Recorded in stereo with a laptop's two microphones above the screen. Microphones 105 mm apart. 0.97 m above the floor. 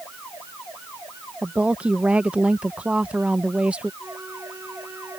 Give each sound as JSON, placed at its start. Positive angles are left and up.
{"t": 1.4, "sound": "a woman speaking", "side_deg": -10}
{"t": 4.0, "sound": "a flute", "side_deg": -25}